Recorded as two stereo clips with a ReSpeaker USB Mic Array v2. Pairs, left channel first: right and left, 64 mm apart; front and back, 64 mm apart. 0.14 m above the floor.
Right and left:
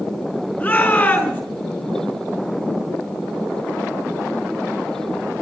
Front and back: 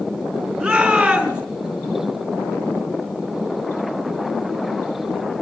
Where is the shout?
110° right, 1.8 m.